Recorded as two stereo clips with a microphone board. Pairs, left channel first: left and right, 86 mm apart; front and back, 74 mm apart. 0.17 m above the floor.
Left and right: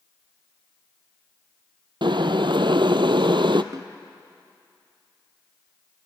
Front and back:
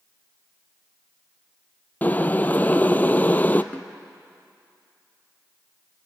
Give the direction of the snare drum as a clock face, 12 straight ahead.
2 o'clock.